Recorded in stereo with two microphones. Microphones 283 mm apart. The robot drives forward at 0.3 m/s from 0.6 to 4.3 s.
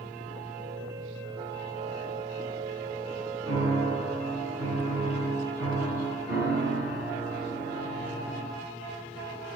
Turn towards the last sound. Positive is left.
turn(degrees=20)  # may be behind; listen again after turning